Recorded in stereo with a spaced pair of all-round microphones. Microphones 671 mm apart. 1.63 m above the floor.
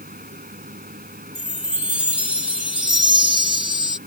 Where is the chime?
85° left.